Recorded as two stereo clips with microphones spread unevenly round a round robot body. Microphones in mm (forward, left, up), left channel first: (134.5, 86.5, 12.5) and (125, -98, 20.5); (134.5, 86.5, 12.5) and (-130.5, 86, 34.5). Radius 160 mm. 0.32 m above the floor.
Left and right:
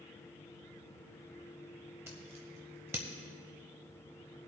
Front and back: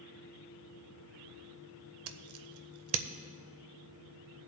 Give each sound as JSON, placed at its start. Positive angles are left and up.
{"t": 2.1, "sound": "scissors", "azimuth_deg": -170, "distance_m": 0.6}